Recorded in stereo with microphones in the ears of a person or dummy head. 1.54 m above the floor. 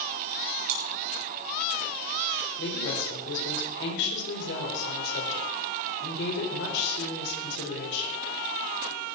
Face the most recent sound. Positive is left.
turn(degrees=70)  # may be behind; listen again after turning